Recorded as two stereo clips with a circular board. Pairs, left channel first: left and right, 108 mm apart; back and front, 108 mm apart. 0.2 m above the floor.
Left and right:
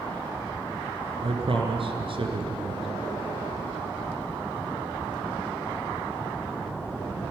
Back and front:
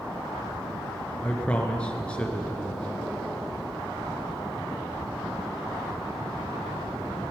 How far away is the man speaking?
About 3 m.